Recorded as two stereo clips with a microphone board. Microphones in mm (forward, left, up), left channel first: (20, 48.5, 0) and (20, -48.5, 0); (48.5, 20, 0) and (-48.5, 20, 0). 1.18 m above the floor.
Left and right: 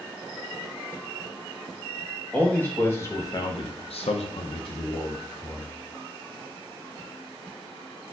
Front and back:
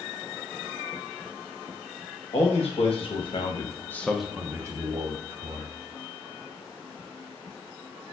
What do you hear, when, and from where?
2.3 s a man speaking: 15° left, 1.3 m; by 5.7 s 140° left, 1.3 m